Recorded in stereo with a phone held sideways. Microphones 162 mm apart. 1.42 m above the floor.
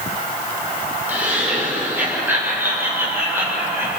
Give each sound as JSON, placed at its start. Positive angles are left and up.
{"t": 1.1, "sound": "laughter", "side_deg": -10, "distance_m": 8.0}